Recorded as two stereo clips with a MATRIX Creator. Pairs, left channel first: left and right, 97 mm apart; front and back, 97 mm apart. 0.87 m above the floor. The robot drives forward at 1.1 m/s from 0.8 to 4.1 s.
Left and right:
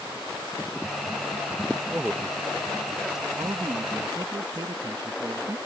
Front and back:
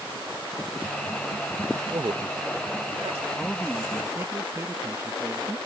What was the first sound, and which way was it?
A man speaking, 160° right.